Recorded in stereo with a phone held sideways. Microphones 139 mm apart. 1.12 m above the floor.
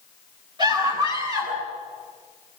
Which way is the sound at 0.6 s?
30° right (ahead or behind).